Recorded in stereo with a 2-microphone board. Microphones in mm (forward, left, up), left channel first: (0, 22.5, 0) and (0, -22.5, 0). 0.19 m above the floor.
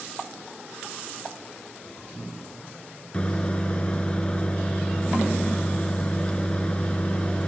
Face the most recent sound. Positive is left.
turn(degrees=25)  # may be behind; listen again after turning